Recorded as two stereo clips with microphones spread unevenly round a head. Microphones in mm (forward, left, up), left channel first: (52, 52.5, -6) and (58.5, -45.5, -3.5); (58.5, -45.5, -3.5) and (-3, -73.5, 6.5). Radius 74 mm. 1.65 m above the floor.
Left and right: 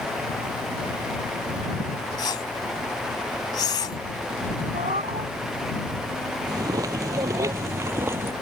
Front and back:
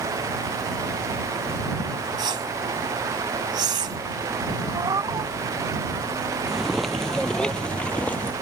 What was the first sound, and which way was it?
A whoosh, 160° left.